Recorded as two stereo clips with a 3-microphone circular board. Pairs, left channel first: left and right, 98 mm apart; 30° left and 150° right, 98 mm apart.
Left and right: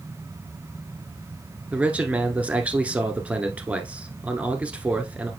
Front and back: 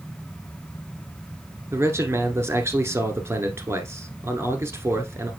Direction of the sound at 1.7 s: 150° right.